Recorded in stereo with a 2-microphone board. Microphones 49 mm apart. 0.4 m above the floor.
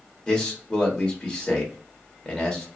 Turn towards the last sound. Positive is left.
turn(degrees=20)  # may be behind; listen again after turning